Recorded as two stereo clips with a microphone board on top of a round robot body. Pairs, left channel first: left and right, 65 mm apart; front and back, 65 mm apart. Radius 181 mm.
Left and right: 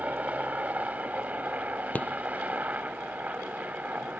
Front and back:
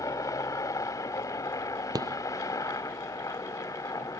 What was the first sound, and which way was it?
A helicopter, 25° right.